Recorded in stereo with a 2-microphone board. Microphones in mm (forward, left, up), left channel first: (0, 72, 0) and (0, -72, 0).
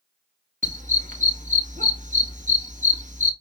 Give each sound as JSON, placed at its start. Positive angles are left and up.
{"t": 0.6, "sound": "a dog barking", "side_deg": -60, "distance_m": 1.0}